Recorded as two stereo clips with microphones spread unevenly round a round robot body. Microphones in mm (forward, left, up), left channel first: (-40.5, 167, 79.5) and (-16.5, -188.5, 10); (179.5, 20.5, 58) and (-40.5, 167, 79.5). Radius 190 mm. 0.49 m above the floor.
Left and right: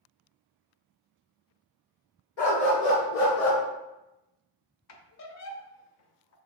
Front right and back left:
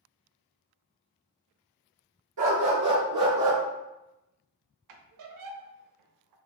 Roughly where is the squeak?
Behind left.